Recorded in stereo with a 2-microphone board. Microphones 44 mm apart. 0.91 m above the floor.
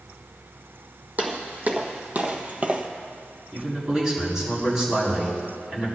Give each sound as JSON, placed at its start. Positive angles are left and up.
{"t": 1.2, "sound": "footsteps", "side_deg": -40, "distance_m": 1.9}
{"t": 3.5, "sound": "a man speaking", "side_deg": -10, "distance_m": 5.5}